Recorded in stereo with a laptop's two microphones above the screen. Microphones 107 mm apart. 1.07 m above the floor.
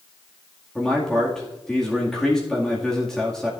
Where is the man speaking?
5° left (ahead or behind), 2 m.